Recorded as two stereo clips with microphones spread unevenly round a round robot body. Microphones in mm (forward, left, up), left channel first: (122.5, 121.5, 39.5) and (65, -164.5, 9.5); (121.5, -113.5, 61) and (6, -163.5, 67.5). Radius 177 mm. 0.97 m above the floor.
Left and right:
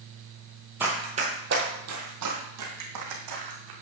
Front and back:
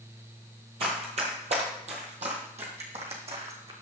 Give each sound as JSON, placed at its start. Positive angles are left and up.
{"t": 0.8, "sound": "running footsteps", "azimuth_deg": 170, "distance_m": 1.3}